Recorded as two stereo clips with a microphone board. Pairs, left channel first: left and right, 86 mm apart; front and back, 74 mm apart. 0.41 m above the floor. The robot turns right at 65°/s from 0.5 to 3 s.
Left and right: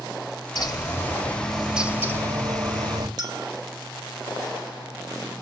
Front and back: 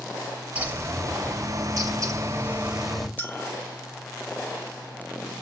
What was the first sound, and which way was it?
A bird, 115° left.